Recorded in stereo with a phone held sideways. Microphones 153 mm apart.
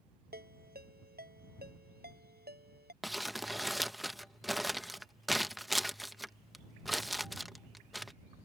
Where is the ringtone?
85° right.